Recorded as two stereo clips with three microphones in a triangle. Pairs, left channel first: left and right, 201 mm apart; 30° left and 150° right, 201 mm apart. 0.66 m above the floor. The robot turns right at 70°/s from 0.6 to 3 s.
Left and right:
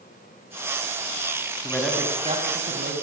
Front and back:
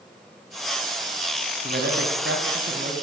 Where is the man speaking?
165° left, 5.5 m; by 2.9 s 105° right, 5.5 m.